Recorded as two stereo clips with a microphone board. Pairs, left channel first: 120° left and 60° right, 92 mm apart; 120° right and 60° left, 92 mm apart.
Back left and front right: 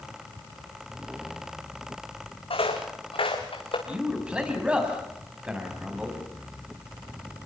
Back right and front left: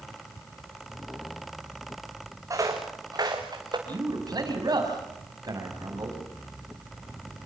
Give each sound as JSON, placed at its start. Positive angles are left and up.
{"t": 2.5, "sound": "footsteps", "azimuth_deg": 115, "distance_m": 3.0}
{"t": 3.9, "sound": "a man speaking", "azimuth_deg": 15, "distance_m": 6.0}